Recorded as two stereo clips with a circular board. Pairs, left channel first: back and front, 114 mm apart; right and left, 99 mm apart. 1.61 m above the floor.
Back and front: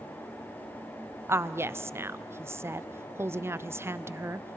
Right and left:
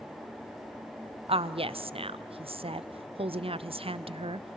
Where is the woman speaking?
70° left, 0.5 m.